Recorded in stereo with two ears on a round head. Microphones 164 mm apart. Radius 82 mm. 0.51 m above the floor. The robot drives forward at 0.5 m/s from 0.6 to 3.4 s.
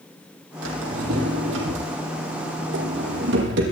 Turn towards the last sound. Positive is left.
turn(degrees=-65)  # may be behind; listen again after turning